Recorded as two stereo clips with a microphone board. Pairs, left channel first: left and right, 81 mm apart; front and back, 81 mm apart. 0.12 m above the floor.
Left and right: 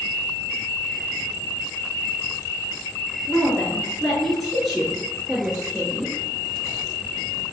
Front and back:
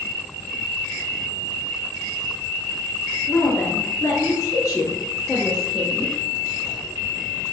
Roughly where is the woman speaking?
Ahead left.